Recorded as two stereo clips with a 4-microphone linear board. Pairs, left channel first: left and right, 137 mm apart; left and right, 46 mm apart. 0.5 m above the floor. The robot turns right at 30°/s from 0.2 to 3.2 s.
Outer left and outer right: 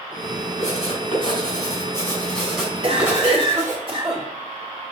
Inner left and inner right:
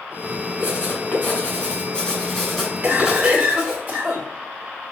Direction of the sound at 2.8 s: 50° right (ahead or behind).